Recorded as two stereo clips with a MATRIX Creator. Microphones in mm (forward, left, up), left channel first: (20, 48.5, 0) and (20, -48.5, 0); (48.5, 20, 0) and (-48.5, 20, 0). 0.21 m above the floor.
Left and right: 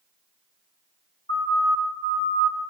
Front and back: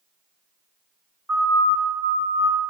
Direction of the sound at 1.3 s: 85° left.